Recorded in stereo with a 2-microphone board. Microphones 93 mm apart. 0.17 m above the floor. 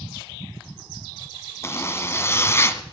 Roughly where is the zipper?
Left.